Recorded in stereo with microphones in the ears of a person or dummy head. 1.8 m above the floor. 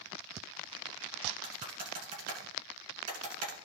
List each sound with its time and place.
1.4 s typing on a keyboard: 50° right (ahead or behind), 3 m